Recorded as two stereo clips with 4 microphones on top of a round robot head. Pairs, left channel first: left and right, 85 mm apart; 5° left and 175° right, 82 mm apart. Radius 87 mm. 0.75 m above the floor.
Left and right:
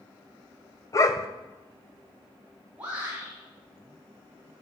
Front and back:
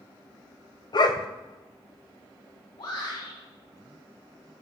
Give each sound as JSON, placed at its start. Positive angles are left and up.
{"t": 0.9, "sound": "a dog barking", "azimuth_deg": 40, "distance_m": 1.8}
{"t": 2.8, "sound": "a shout", "azimuth_deg": -15, "distance_m": 8.5}